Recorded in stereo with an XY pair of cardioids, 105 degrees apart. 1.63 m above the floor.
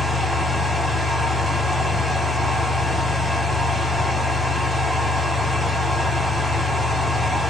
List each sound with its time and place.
0.0 s a fan: 10° left, 1.3 m